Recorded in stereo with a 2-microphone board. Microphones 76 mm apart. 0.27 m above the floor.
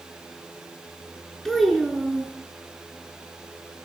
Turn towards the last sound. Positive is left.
turn(degrees=5)  # may be behind; listen again after turning